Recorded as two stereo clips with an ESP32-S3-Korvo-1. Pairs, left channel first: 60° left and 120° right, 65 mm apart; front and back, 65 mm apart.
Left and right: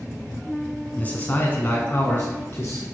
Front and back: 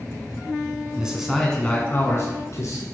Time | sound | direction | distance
1.0 | a man speaking | 110° left | 1.5 m